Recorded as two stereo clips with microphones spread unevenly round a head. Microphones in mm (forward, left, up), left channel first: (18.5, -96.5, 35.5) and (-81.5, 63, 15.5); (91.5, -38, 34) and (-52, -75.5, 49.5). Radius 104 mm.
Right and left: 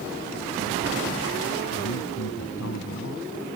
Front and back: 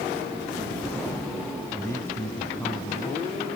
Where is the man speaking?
60° right.